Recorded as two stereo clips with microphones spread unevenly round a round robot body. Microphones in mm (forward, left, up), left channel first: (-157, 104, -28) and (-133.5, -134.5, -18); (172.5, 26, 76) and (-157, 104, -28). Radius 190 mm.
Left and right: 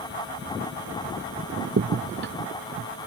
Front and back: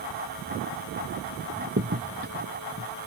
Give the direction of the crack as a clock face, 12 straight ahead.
4 o'clock.